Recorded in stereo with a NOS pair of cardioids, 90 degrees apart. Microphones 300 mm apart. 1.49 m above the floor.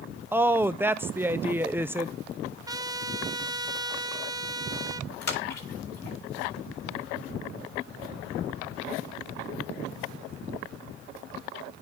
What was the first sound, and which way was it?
A woman speaking, 10° right.